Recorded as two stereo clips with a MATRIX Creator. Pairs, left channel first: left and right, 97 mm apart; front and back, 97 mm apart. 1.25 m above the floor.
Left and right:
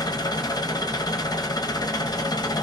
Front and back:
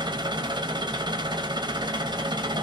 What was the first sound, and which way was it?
An engine running, 140° left.